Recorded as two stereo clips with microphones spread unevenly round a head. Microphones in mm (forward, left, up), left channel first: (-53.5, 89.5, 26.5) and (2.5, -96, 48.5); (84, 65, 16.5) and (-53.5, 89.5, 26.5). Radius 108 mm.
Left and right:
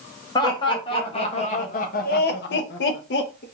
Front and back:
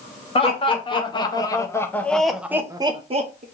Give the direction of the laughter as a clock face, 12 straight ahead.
11 o'clock.